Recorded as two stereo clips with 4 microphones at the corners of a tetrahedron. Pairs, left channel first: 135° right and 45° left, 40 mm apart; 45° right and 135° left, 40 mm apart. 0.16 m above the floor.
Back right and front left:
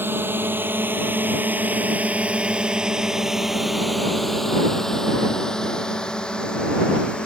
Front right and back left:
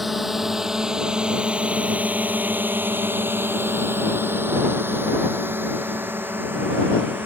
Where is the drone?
50° left; by 7.3 s 165° left.